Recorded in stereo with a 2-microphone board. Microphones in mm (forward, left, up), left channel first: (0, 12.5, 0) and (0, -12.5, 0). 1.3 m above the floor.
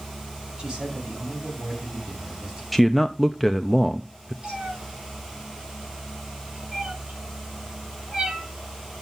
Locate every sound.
0.6 s a man speaking: 35° right (ahead or behind), 8.5 m
2.7 s a man speaking: 5° left (ahead or behind), 0.6 m
4.4 s a cat meowing: 45° right (ahead or behind), 8.5 m